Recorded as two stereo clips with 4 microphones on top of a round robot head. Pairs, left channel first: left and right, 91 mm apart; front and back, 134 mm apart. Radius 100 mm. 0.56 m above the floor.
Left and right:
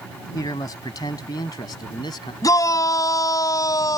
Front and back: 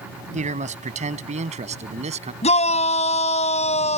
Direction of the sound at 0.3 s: 150° left.